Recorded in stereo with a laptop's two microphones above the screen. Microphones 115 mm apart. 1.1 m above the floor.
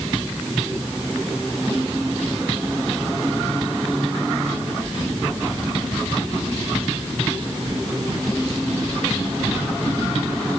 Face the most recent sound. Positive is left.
No sound to turn to.